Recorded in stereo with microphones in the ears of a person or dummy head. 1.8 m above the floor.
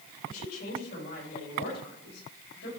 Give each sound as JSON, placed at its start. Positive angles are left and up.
{"t": 0.3, "sound": "a woman speaking", "side_deg": 50, "distance_m": 7.0}